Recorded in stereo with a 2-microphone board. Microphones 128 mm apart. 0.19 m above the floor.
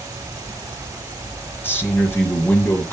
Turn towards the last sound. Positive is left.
turn(degrees=15)  # may be behind; listen again after turning